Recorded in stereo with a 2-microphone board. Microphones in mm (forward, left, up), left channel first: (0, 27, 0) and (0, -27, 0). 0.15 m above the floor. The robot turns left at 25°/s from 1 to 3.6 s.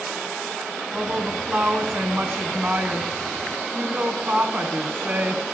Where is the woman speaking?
45° right, 1.6 m; by 5.4 s 110° right, 1.6 m.